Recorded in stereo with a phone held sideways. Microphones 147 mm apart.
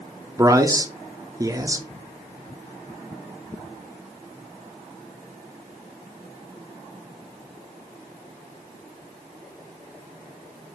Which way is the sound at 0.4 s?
20° right (ahead or behind).